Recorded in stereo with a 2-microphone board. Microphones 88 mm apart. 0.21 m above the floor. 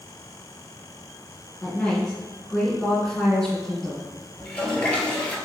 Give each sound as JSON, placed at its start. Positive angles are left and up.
{"t": 1.6, "sound": "a woman speaking", "side_deg": 10, "distance_m": 2.0}
{"t": 4.4, "sound": "a toilet flushing", "side_deg": 15, "distance_m": 0.9}